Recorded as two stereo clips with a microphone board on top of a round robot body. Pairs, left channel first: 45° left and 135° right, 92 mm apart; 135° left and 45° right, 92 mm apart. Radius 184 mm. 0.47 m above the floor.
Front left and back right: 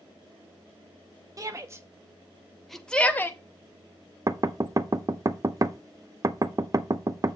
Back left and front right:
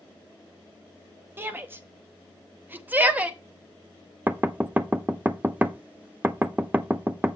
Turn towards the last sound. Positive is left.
turn(degrees=-110)